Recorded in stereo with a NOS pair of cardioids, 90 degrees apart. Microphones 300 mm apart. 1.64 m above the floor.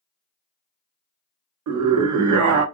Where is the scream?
70° right, 1.0 m.